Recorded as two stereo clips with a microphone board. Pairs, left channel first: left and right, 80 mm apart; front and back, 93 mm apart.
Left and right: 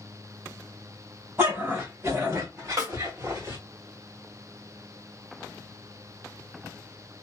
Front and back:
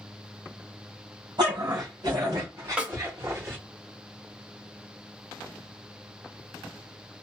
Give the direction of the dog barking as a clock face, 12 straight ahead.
5 o'clock.